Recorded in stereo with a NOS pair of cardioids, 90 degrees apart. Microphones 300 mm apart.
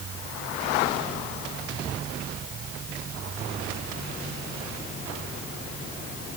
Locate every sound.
Only background noise.